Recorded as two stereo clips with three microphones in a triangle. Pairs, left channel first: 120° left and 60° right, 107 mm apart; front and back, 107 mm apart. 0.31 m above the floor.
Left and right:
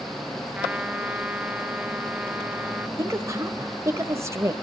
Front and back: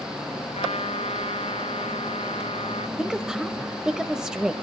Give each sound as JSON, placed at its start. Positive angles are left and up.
{"t": 0.6, "sound": "a trumpet", "azimuth_deg": 20, "distance_m": 0.7}
{"t": 3.0, "sound": "a woman speaking", "azimuth_deg": -100, "distance_m": 1.1}